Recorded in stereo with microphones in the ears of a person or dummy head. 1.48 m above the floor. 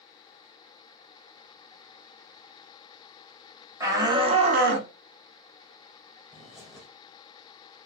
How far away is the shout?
About 1.0 m.